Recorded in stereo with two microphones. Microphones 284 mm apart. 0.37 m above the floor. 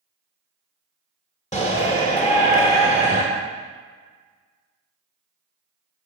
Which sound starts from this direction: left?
A shout, at 1.5 s.